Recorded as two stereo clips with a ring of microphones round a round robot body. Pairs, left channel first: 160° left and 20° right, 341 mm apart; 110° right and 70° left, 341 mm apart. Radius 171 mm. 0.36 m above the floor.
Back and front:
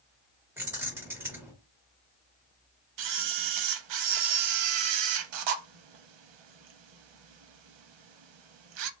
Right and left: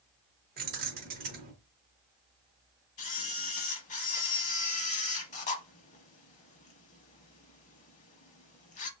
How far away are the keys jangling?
About 0.8 m.